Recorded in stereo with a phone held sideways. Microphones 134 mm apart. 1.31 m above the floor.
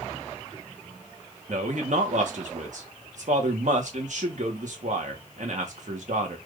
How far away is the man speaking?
About 1.2 m.